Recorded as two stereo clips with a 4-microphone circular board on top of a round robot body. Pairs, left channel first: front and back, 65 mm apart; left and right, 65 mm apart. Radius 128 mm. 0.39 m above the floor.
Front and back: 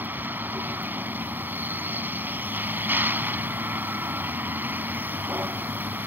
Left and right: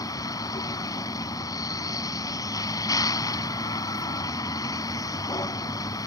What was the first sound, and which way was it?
A vehicle, 120° left.